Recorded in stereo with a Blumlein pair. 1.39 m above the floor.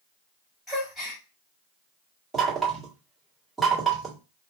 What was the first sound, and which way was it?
A gasp, 10° left.